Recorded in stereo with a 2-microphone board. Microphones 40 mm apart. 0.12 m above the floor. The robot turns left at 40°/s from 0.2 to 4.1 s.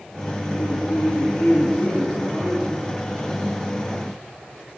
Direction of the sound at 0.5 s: 95° left.